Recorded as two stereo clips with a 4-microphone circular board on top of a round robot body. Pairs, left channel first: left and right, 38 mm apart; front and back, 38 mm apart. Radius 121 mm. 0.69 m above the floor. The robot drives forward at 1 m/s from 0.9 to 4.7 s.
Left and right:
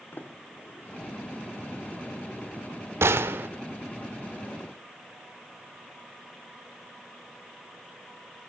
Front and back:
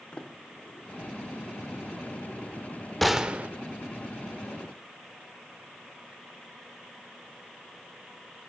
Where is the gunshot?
90° right, 0.6 m; by 3.5 s 130° right, 0.8 m.